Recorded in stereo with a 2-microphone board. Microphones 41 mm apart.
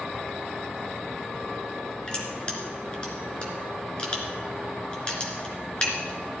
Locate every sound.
2.1 s crushing: 25° left (ahead or behind), 3 m